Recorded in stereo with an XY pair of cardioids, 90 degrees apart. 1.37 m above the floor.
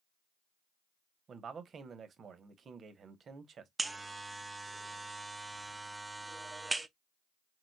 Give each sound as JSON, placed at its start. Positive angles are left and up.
{"t": 1.3, "sound": "a man speaking", "azimuth_deg": -55, "distance_m": 1.2}
{"t": 3.8, "sound": "a buzzer", "azimuth_deg": -20, "distance_m": 0.6}